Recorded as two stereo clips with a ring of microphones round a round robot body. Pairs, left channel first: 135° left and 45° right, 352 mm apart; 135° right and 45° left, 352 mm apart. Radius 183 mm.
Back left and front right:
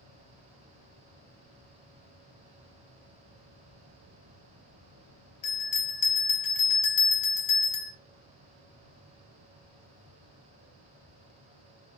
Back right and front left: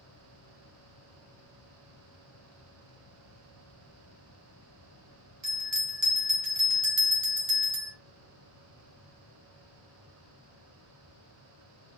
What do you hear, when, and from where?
5.4 s a bell: 100° left, 1.8 m